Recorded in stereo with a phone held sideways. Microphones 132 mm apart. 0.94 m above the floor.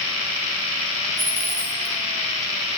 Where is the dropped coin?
50° right (ahead or behind), 1.5 m.